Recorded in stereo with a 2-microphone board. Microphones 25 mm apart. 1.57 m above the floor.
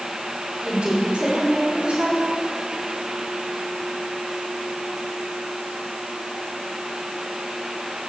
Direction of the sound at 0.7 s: 60° right (ahead or behind).